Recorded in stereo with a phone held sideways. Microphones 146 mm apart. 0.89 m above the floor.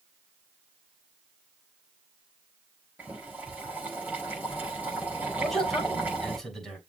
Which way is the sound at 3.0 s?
10° right (ahead or behind).